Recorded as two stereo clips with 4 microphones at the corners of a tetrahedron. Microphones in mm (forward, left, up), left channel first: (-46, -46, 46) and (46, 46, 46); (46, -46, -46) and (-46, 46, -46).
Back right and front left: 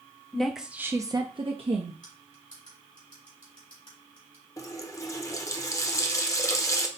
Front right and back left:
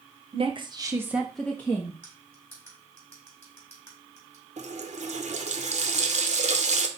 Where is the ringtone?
No ringtone in this recording.